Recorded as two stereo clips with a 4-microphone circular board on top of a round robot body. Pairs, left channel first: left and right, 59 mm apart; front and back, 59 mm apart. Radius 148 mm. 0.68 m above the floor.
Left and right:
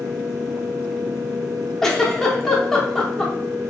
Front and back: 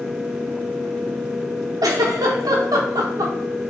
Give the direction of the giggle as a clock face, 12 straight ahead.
6 o'clock.